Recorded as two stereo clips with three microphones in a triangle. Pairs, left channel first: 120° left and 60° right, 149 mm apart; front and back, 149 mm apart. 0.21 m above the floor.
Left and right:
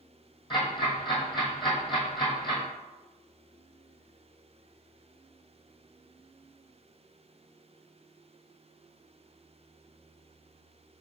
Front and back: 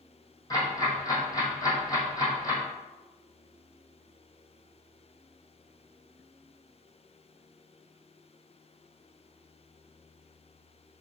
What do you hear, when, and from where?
0.5 s ticking: 65° left, 2 m